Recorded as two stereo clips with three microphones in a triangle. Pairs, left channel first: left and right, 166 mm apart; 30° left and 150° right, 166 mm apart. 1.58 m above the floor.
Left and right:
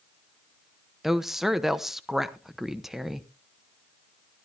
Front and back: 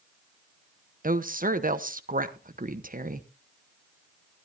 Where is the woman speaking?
Straight behind, 0.9 m.